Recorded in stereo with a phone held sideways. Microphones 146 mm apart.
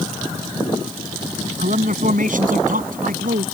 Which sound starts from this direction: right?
A man speaking, at 1.6 s.